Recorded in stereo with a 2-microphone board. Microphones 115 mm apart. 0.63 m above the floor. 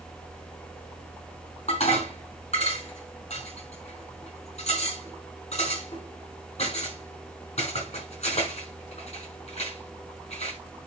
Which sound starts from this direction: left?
Dishes clattering, at 1.7 s.